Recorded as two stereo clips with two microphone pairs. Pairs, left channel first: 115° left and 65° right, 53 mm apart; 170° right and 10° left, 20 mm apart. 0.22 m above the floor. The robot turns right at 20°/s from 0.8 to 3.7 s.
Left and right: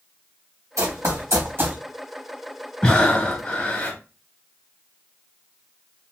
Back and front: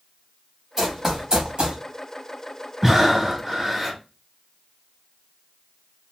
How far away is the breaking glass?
No breaking glass in this recording.